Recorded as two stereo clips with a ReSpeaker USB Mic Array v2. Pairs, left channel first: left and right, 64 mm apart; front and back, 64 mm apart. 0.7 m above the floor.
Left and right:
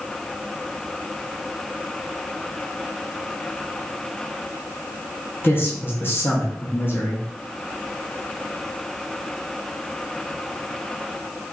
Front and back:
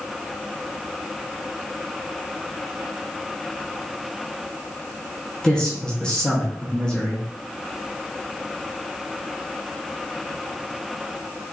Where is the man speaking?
70° left, 0.8 m.